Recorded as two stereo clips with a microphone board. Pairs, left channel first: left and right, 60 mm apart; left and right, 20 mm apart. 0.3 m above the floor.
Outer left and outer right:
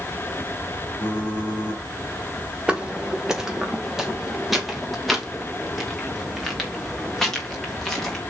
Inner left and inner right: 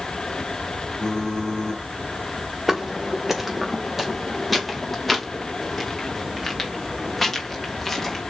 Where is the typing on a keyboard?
35° left (ahead or behind), 4.5 m.